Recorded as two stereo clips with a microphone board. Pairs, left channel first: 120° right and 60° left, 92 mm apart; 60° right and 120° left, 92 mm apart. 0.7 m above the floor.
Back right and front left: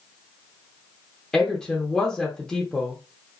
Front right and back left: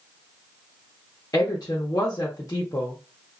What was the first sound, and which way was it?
A woman speaking, 40° right.